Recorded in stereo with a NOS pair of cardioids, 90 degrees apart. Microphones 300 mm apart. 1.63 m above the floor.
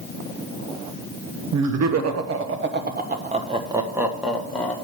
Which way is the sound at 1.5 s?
65° right.